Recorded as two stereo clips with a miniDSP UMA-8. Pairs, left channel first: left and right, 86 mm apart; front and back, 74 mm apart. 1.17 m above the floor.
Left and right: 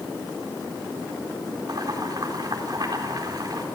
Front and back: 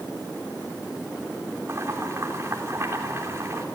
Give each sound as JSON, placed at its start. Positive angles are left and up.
{"t": 1.7, "sound": "boiling", "azimuth_deg": -125, "distance_m": 3.5}